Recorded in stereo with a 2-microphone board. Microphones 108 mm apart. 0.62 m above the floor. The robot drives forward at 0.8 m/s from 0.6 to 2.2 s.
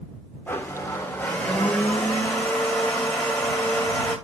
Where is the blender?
20° left (ahead or behind), 1.3 m; by 4.2 s 10° left (ahead or behind), 2.5 m.